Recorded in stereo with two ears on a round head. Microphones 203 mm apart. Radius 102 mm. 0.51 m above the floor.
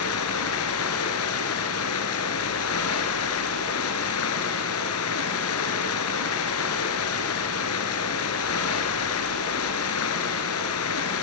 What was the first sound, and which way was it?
Running water, 80° left.